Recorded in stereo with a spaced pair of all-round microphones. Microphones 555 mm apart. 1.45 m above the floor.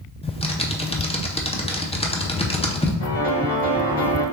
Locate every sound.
0.2 s typing on a keyboard: 10° left (ahead or behind), 0.5 m
3.0 s a piano: 60° left (ahead or behind), 1.4 m